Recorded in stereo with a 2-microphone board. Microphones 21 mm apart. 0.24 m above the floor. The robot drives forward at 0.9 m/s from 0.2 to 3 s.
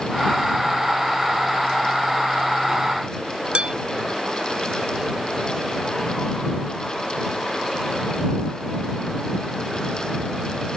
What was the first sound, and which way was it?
Dishes clattering, 55° right (ahead or behind).